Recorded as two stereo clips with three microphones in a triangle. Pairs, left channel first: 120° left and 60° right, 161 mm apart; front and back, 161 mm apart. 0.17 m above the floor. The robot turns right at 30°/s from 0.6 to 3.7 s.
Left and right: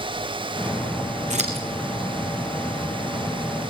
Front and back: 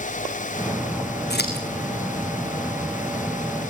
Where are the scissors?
15° right, 4 m; by 1.6 s 5° right, 4 m.